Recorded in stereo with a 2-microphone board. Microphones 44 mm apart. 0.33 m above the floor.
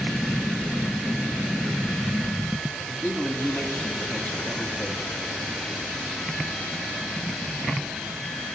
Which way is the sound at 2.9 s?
40° left (ahead or behind).